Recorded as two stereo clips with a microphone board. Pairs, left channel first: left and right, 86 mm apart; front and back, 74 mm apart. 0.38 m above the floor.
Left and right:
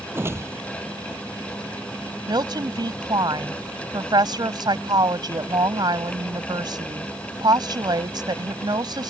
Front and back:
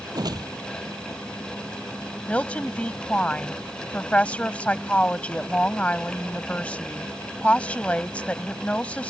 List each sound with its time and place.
0.1 s a whoosh: 150° right
2.3 s a woman speaking: 70° right